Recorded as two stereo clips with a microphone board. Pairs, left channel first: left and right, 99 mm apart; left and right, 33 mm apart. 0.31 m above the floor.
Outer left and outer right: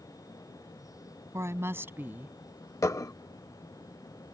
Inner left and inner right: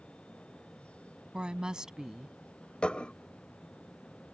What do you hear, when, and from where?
1.3 s a woman speaking: 30° right (ahead or behind); by 2.4 s 15° right (ahead or behind)
2.8 s dishes clattering: 30° left (ahead or behind)